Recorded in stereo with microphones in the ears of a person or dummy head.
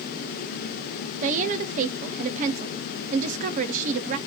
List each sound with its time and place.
1.2 s a woman speaking: 45° right (ahead or behind), 0.5 m